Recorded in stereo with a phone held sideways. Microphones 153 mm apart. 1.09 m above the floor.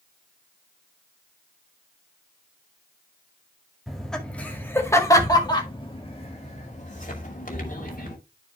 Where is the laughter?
Centre (ahead or behind), 2 m; by 8.2 s 65° left (ahead or behind), 2.5 m.